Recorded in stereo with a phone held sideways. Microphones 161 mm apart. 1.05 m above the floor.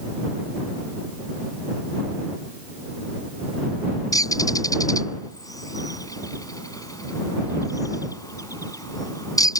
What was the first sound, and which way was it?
A bird, 20° left (ahead or behind).